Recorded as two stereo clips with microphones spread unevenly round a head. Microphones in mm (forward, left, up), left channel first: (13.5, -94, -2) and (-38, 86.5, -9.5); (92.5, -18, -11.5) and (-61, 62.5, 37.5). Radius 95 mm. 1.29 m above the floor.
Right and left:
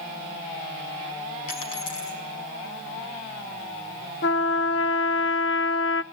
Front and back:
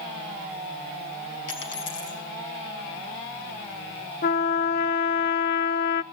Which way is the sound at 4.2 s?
40° right.